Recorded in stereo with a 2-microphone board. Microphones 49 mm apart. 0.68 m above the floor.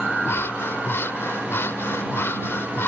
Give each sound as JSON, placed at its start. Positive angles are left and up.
{"t": 0.2, "sound": "breathing", "side_deg": 55}